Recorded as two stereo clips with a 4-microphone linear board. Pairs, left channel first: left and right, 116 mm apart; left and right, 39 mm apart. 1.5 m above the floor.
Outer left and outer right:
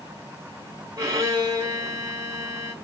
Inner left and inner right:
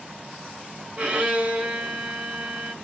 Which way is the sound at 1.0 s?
30° right (ahead or behind).